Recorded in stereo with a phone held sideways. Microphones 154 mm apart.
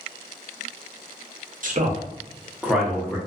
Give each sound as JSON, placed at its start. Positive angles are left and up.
{"t": 1.6, "sound": "a man speaking", "side_deg": -60, "distance_m": 0.7}